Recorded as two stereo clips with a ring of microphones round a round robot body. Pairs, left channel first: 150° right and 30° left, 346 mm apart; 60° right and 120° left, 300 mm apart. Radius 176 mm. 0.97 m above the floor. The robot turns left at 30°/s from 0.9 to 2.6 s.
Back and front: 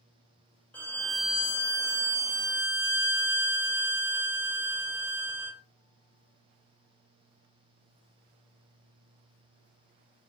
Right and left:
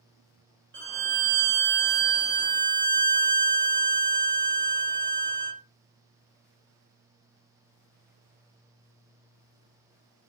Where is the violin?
125° left, 0.8 m; by 5.6 s 75° left, 0.8 m.